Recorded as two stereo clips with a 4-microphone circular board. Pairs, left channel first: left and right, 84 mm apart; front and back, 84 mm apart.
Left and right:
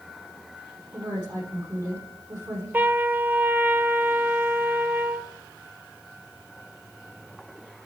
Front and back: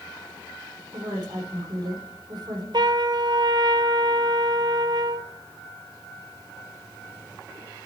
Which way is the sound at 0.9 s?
145° right.